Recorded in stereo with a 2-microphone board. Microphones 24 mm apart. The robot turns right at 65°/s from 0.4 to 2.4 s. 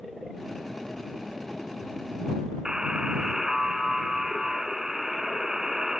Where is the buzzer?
30° right (ahead or behind).